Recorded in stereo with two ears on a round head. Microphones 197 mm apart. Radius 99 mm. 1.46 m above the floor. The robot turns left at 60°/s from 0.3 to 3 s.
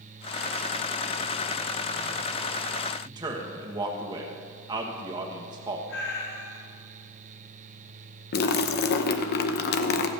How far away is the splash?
About 0.7 m.